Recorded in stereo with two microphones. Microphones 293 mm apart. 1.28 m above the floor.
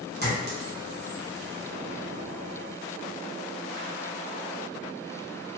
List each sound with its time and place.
0.2 s a clink: 35° right (ahead or behind), 1.0 m